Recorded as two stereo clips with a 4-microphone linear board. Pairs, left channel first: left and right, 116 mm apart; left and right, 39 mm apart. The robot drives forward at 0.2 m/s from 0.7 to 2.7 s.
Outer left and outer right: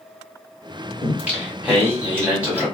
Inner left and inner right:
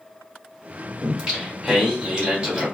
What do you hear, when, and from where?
1.0 s singing: 15° right (ahead or behind), 1.5 m; by 2.7 s 10° right (ahead or behind), 1.8 m